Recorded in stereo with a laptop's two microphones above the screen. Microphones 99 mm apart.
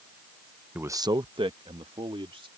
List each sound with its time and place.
0.8 s a man speaking: 15° right (ahead or behind); by 2.5 s 70° right (ahead or behind)